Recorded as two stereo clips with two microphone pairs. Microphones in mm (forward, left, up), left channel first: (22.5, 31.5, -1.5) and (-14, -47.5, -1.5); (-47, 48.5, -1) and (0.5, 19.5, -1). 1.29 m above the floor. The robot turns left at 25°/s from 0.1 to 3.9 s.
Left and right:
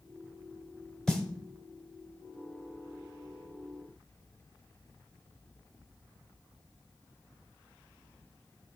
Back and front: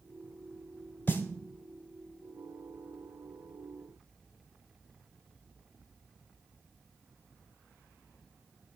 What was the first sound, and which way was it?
A snare drum, 150° left.